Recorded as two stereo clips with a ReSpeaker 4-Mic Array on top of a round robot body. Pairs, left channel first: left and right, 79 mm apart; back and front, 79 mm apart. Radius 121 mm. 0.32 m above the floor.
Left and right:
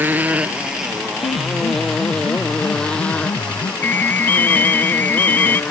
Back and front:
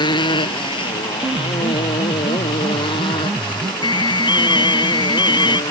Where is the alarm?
155° left.